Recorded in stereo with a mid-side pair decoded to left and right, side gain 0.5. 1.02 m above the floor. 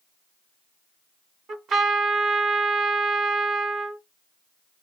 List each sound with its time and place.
1.5 s a trumpet: 60° right, 2.5 m